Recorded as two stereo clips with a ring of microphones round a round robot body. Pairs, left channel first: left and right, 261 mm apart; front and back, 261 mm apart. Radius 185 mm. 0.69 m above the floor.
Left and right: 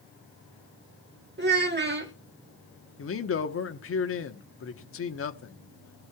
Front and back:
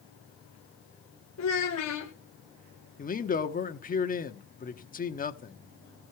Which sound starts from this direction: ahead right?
A child speaking, at 1.4 s.